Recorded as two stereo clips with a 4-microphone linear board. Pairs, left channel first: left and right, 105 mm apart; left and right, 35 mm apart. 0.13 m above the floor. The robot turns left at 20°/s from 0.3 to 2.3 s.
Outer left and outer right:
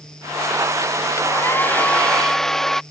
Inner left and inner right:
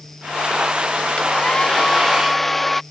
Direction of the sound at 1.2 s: 25° left (ahead or behind).